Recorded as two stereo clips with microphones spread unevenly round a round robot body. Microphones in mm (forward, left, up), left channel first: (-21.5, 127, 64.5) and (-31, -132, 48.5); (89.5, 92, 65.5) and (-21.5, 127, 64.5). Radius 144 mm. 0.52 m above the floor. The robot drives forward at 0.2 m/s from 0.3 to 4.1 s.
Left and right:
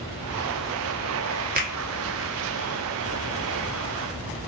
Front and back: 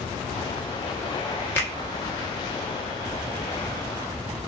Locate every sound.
1.6 s a finger snap: 80° right, 1.0 m; by 1.8 s 85° right, 1.0 m